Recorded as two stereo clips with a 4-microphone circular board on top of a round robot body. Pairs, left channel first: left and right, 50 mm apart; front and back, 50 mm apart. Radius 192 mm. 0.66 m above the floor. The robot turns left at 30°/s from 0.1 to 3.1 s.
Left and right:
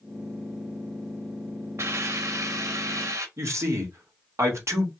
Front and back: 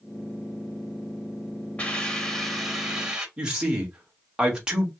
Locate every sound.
1.8 s a hiss: 70° right, 2.5 m; by 3.3 s 105° right, 2.5 m
3.4 s a man speaking: 105° right, 2.0 m